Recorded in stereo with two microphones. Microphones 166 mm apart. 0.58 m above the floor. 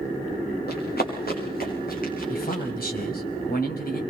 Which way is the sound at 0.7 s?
70° left (ahead or behind).